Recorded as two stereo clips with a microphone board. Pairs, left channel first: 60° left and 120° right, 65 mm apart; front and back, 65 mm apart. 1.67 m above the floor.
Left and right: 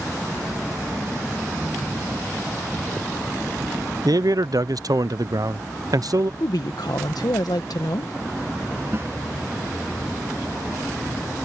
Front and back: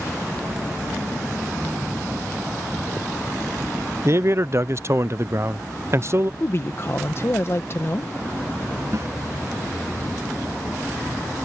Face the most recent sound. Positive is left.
turn(degrees=-160)